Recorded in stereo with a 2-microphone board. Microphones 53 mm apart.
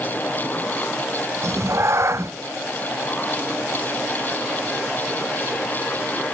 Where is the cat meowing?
60° right (ahead or behind), 0.5 m.